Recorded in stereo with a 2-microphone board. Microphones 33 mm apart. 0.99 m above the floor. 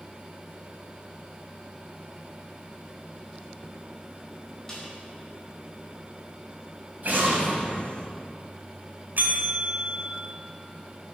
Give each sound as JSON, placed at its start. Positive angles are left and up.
{"t": 4.7, "sound": "a snare drum", "side_deg": 15, "distance_m": 4.5}
{"t": 7.0, "sound": "an explosion", "side_deg": -55, "distance_m": 3.5}
{"t": 9.2, "sound": "a bell", "side_deg": -65, "distance_m": 2.0}